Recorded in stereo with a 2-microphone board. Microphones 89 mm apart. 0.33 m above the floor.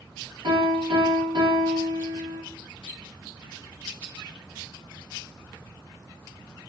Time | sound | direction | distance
0.4 | a piano | 70° right (ahead or behind) | 1.3 m